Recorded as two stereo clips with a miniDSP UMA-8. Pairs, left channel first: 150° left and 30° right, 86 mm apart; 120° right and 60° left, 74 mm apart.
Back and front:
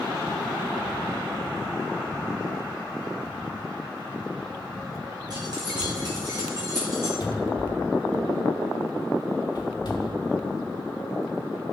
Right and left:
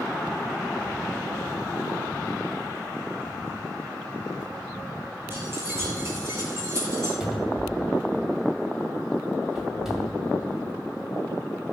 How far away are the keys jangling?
About 3 m.